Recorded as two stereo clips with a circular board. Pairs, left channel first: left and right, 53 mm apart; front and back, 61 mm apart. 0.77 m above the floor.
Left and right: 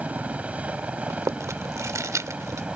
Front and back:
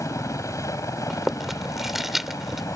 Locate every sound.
0.0 s a helicopter: 25° right; by 2.8 s 20° right
1.1 s chewing: 95° right